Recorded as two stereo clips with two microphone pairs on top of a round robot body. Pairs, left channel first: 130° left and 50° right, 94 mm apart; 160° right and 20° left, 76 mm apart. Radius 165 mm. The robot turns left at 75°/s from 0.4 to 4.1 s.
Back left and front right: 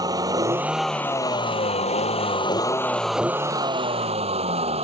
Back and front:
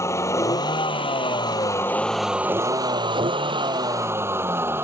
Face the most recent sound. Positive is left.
turn(degrees=-45)